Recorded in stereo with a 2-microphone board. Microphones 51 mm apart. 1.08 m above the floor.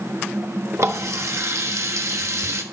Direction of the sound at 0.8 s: 70° right (ahead or behind).